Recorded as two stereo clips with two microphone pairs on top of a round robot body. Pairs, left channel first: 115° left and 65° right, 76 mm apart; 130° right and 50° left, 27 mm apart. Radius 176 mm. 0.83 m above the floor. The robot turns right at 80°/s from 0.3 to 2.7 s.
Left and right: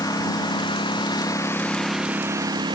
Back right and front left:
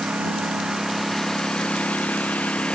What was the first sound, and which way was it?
A lawn mower, 75° left.